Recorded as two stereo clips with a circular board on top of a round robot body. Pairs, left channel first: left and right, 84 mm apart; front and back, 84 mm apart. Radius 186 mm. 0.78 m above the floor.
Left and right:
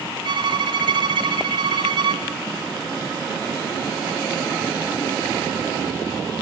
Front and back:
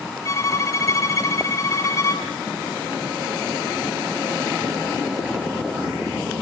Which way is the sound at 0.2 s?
55° right.